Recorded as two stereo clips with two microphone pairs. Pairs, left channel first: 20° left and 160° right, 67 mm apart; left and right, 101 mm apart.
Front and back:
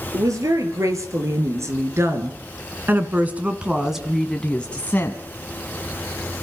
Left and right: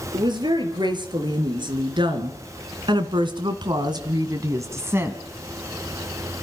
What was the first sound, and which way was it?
A woman speaking, 130° right.